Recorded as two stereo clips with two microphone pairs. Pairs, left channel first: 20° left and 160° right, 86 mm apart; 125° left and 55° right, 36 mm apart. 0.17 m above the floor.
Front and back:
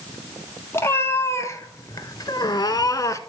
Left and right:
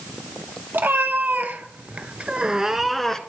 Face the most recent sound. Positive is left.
turn(degrees=55)